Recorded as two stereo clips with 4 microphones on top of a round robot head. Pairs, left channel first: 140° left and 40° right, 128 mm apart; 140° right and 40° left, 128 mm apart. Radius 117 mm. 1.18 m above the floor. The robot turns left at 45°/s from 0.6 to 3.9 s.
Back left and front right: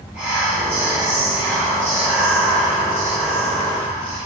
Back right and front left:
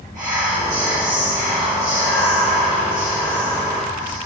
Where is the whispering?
35° left, 3 m; by 4.2 s 115° right, 3 m.